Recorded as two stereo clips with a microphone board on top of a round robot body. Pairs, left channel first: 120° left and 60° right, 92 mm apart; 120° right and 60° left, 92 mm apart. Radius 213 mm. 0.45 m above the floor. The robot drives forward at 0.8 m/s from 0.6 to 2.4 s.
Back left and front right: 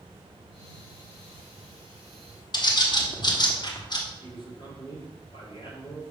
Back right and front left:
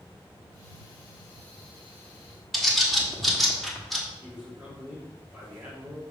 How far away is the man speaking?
About 2.5 m.